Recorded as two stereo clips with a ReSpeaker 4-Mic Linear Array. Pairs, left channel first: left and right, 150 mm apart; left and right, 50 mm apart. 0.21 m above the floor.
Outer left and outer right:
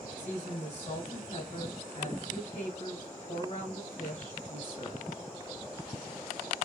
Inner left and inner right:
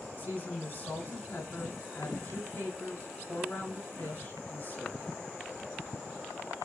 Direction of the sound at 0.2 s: 35° left (ahead or behind).